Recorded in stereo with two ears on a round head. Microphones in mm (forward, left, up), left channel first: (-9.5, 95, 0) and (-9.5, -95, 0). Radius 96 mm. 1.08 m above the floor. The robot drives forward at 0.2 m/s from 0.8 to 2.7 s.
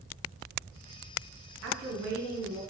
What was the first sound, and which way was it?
A woman speaking, 55° right (ahead or behind).